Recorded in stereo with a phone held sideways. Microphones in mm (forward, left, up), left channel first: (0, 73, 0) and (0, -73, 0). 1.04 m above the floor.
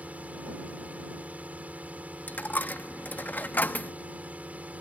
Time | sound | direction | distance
0.0 | a drone | 10° right (ahead or behind) | ?
2.3 | a dropped coin | 10° left (ahead or behind) | ?